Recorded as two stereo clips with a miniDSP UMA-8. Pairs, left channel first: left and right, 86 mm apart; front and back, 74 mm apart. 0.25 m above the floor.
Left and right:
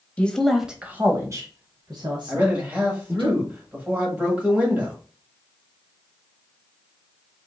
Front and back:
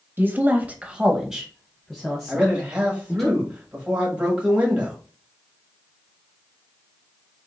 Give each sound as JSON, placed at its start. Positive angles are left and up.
{"t": 0.2, "sound": "a woman speaking", "azimuth_deg": 150, "distance_m": 1.0}
{"t": 2.3, "sound": "a man speaking", "azimuth_deg": -130, "distance_m": 1.6}